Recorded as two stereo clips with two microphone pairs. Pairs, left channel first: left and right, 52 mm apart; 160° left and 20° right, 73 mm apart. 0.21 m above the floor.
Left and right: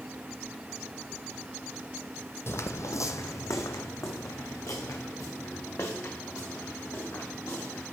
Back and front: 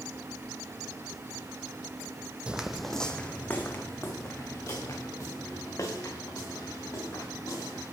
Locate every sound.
2.5 s footsteps: 55° left, 0.5 m; by 7.9 s 120° left, 3 m